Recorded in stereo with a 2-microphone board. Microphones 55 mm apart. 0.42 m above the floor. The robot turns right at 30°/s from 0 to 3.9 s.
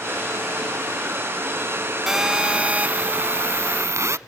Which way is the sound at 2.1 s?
170° right.